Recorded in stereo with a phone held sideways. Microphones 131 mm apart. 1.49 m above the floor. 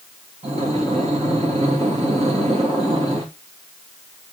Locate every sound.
0.4 s breathing: 55° right (ahead or behind), 3 m